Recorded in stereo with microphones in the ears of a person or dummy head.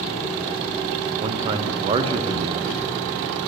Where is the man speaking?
30° right (ahead or behind), 0.7 m.